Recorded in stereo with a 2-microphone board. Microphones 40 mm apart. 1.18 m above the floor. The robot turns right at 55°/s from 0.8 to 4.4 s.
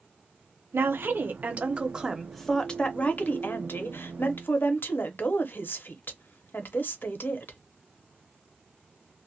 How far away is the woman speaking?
About 0.8 m.